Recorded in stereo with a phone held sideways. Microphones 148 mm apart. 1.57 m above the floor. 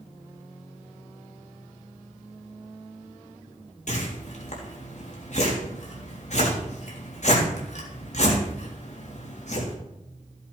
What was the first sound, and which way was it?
A whoosh, 60° left (ahead or behind).